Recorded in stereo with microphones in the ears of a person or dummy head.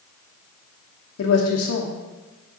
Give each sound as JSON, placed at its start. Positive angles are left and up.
{"t": 1.2, "sound": "a woman speaking", "side_deg": 75, "distance_m": 1.0}